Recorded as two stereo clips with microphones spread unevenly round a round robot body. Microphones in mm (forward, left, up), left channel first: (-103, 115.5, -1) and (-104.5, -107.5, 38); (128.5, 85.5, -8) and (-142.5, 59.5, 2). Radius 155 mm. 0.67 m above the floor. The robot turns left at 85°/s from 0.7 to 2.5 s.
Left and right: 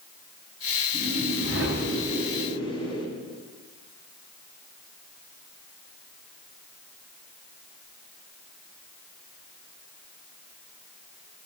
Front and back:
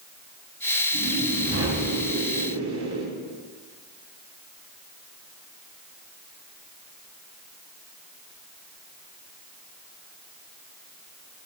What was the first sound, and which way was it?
A whoosh, 65° right.